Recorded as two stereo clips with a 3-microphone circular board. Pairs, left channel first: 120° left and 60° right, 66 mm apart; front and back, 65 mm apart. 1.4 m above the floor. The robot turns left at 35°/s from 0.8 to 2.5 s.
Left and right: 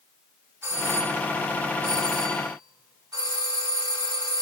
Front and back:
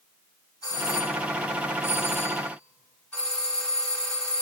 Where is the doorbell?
10° right, 5 m; by 4.4 s 70° right, 5 m.